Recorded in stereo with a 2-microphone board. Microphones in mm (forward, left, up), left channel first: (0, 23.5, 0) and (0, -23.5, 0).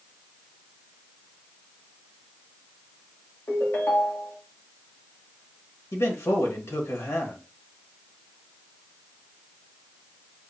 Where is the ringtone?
65° left (ahead or behind), 1.6 m.